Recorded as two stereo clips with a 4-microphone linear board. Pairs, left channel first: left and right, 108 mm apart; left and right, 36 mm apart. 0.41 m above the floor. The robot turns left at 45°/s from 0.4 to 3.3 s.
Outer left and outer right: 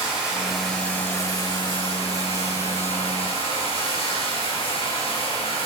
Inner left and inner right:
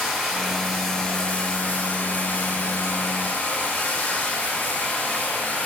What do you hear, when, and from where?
0.0 s running water: 170° right, 6.5 m; by 5.7 s 60° left, 6.5 m